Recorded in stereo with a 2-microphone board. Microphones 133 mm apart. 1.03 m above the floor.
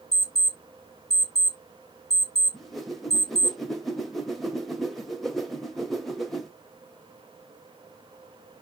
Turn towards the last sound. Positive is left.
turn(degrees=0)  # may be behind; listen again after turning